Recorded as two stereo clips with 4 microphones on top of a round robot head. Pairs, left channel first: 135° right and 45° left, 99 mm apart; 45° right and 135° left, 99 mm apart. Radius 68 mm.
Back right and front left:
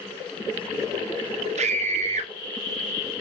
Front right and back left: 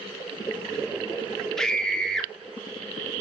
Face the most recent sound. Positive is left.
turn(degrees=40)